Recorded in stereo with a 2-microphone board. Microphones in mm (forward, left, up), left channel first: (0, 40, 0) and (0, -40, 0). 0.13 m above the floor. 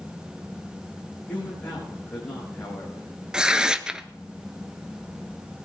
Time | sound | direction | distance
1.3 | a man speaking | 20° left (ahead or behind) | 7 m
3.3 | tearing paper | 10° right (ahead or behind) | 0.5 m